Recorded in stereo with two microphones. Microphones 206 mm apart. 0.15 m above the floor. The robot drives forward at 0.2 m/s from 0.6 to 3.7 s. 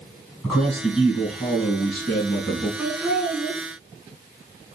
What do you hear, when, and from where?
0.4 s a man speaking: centre (ahead or behind), 1.8 m
2.8 s laughter: centre (ahead or behind), 1.8 m